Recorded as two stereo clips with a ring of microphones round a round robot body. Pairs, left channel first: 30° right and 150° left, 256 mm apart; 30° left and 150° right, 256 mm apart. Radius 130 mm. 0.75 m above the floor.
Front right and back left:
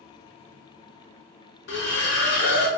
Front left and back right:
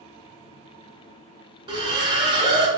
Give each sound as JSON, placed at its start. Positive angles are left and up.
{"t": 1.7, "sound": "a splash", "azimuth_deg": -75, "distance_m": 0.7}